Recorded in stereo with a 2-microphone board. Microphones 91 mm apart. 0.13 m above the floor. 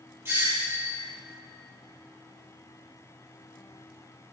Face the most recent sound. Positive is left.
turn(degrees=-30)  # may be behind; listen again after turning